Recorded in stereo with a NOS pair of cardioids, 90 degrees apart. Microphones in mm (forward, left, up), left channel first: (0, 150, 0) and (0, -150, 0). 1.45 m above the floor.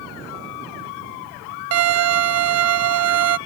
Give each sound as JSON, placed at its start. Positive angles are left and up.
{"t": 1.7, "sound": "a violin", "azimuth_deg": -55}